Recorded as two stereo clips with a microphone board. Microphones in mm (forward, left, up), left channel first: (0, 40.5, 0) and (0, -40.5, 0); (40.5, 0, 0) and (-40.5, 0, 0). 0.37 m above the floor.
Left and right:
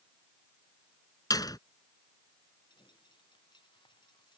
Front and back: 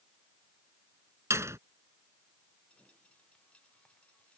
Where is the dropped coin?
75° left.